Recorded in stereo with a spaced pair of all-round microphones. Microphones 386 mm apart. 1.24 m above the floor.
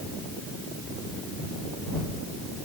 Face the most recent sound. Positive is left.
No sound to turn to.